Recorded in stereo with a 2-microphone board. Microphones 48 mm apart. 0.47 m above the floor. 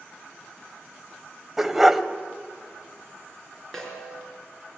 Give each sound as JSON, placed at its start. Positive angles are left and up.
{"t": 1.6, "sound": "a dog barking", "side_deg": -5, "distance_m": 0.8}
{"t": 3.7, "sound": "a snare drum", "side_deg": 5, "distance_m": 5.0}